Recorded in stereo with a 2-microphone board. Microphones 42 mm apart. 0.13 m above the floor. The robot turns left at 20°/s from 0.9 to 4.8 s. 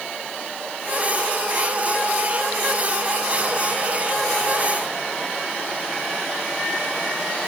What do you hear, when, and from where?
Only background noise.